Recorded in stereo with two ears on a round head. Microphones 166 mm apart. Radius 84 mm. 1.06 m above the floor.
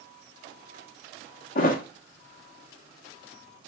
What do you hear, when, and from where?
1.6 s a thud: 45° left (ahead or behind), 0.6 m